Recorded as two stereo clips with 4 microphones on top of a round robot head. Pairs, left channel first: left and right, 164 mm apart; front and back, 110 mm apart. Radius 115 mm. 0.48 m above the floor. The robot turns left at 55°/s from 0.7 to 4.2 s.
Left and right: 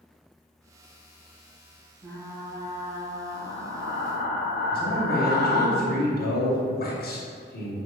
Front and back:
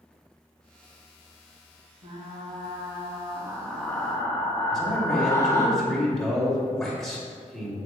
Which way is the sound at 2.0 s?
175° right.